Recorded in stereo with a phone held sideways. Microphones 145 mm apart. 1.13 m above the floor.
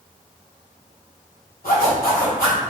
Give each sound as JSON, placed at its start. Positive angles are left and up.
{"t": 1.6, "sound": "a zipper", "side_deg": 80, "distance_m": 1.9}